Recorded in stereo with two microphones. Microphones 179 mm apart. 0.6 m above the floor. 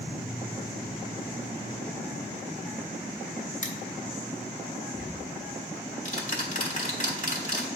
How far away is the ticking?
About 1.4 m.